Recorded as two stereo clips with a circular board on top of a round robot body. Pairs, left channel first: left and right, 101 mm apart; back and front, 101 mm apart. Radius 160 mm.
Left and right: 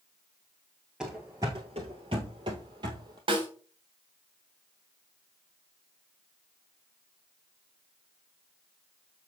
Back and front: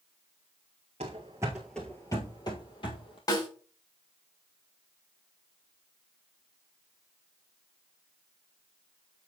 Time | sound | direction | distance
1.0 | running footsteps | 5° right | 1.1 m
3.3 | a snare drum | 130° right | 3.5 m